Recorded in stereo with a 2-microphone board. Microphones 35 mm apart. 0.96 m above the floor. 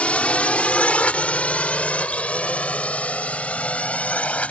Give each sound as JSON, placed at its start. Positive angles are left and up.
{"t": 0.0, "sound": "a drone", "side_deg": 40}